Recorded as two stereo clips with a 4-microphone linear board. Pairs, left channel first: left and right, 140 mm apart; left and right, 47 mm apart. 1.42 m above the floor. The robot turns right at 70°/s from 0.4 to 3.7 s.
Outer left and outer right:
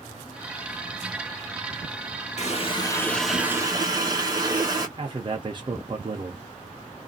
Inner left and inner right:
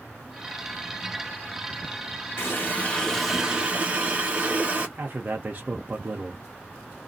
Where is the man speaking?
35° right (ahead or behind), 0.6 m.